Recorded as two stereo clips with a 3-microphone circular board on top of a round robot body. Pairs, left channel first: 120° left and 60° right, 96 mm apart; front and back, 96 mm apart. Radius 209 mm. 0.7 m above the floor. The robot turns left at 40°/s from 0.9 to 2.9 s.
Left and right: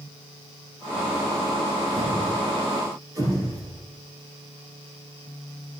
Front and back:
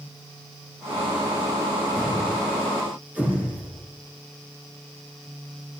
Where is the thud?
70° right, 8 m; by 3.8 s 105° right, 8 m.